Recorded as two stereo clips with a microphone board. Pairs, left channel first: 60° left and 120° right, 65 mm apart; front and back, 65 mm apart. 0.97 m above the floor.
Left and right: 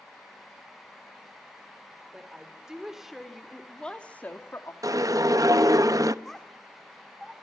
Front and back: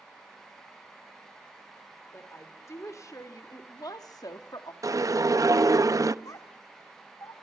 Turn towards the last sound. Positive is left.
turn(degrees=-25)